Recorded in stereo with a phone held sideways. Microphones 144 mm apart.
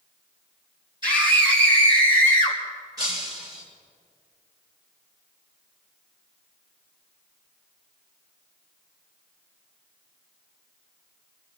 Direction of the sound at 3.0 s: 25° right (ahead or behind).